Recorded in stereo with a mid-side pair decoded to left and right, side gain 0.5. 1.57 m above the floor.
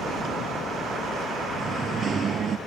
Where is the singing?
45° right.